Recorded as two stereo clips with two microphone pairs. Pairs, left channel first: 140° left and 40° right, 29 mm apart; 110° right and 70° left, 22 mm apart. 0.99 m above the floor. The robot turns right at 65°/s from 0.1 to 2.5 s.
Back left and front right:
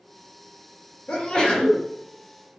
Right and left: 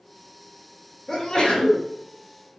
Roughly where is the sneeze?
Behind.